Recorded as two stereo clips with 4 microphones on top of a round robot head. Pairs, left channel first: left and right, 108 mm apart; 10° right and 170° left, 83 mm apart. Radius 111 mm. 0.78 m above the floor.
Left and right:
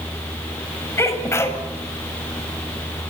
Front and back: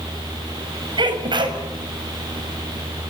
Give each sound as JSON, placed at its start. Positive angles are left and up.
{"t": 1.0, "sound": "a sneeze", "azimuth_deg": 155, "distance_m": 6.5}